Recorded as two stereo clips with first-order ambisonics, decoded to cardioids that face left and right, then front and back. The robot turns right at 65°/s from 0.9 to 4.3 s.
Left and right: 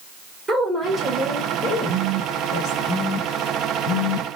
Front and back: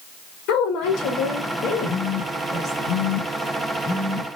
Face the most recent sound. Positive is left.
turn(degrees=100)